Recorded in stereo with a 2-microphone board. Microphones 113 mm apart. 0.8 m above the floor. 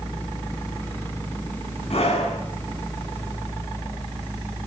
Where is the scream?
60° left (ahead or behind), 8 m.